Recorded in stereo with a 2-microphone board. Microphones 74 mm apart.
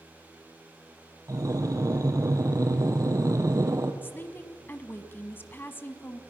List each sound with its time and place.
1.3 s breathing: 50° right (ahead or behind), 1.8 m
4.0 s a woman speaking: 30° left (ahead or behind), 1.3 m